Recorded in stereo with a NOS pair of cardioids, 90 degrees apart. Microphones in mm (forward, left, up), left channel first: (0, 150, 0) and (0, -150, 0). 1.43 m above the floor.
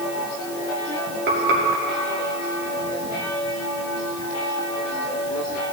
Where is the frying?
35° right, 2 m.